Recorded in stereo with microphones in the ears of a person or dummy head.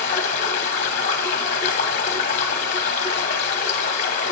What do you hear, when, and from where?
0.0 s running water: 45° left (ahead or behind), 0.7 m